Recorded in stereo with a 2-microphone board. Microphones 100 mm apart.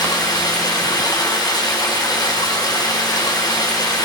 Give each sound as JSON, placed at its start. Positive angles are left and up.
{"t": 0.0, "sound": "running water", "side_deg": 45, "distance_m": 6.5}